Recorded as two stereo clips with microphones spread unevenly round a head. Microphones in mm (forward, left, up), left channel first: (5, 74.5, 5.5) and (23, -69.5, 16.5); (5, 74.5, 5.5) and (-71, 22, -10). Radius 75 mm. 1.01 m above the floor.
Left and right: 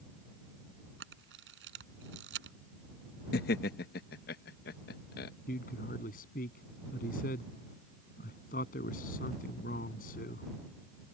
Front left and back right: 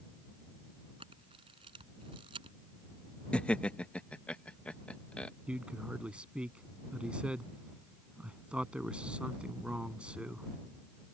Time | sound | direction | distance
1.0 | a camera shutter | 85° right | ?
3.3 | laughter | 115° left | ?
5.5 | a man speaking | 135° left | ?